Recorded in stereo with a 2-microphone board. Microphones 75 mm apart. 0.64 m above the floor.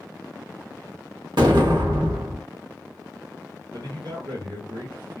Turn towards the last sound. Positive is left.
turn(degrees=-60)  # may be behind; listen again after turning